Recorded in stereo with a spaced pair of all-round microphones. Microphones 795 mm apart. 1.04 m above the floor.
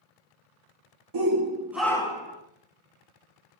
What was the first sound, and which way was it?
A shout, 35° right (ahead or behind).